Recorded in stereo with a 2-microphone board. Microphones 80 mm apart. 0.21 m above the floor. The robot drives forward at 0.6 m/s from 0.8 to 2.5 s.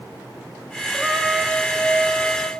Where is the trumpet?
5° left (ahead or behind), 1.5 m; by 2.5 s centre (ahead or behind), 2.5 m.